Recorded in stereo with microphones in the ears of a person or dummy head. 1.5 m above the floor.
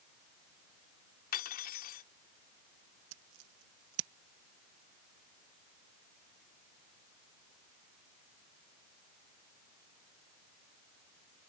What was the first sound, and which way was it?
Cutlery clinking, 45° left (ahead or behind).